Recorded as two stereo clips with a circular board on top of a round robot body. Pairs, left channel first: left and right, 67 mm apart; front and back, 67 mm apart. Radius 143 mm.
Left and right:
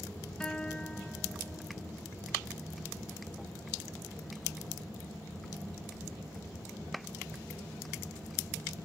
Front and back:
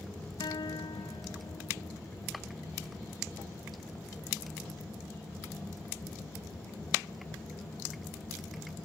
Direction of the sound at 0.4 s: 10° left.